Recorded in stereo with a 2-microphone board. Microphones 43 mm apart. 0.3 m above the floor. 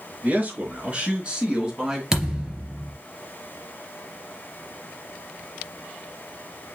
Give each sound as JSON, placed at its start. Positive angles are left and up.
{"t": 0.2, "sound": "a man speaking", "side_deg": -40, "distance_m": 5.0}
{"t": 2.1, "sound": "a thud", "side_deg": -20, "distance_m": 3.0}